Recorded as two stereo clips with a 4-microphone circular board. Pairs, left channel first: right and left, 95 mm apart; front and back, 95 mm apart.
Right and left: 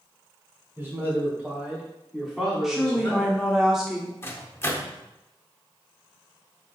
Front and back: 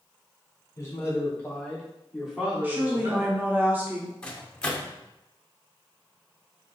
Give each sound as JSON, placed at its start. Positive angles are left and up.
{"t": 0.8, "sound": "a man speaking", "azimuth_deg": 40, "distance_m": 1.5}
{"t": 2.6, "sound": "a woman speaking", "azimuth_deg": 170, "distance_m": 0.7}
{"t": 4.2, "sound": "a microwave", "azimuth_deg": -70, "distance_m": 0.6}